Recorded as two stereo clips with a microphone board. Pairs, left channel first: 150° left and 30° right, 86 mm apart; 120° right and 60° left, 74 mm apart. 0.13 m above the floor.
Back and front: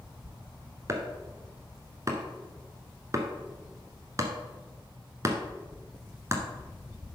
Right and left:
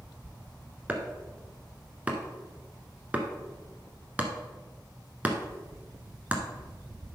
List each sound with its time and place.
0.9 s chopping: straight ahead, 1.2 m